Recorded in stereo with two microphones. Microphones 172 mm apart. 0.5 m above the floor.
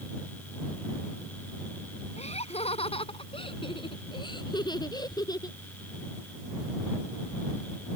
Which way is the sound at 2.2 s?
40° left (ahead or behind).